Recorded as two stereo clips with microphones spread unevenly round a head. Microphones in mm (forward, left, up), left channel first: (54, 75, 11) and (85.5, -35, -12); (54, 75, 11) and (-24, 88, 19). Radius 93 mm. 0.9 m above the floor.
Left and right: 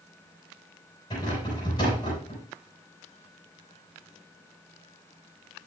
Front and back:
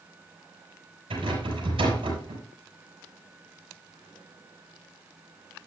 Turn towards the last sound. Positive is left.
turn(degrees=175)